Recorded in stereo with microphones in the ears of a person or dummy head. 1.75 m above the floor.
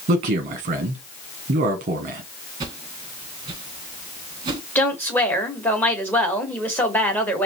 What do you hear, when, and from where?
0.1 s a man speaking: 35° right (ahead or behind), 0.8 m
2.6 s a whoosh: 25° right (ahead or behind), 1.2 m
4.8 s a woman speaking: 5° left (ahead or behind), 1.2 m